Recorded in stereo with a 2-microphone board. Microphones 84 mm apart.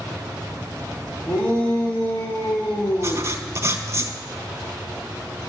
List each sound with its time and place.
1.3 s a shout: 30° left (ahead or behind), 6.5 m; by 3.3 s 40° left (ahead or behind), 7.5 m
3.0 s writing: 40° right (ahead or behind), 1.1 m